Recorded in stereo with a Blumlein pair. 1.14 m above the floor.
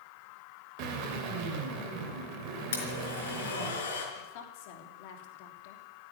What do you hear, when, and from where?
0.8 s a drill: 45° right, 3 m
2.7 s a blender: 65° left, 4.5 m
4.2 s a woman speaking: 50° left, 3 m